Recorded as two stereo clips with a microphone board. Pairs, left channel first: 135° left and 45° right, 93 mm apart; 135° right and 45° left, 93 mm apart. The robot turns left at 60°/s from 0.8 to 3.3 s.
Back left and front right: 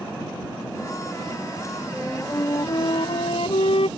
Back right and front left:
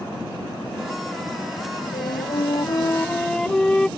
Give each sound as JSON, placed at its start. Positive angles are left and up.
{"t": 1.9, "sound": "a flute", "azimuth_deg": -135}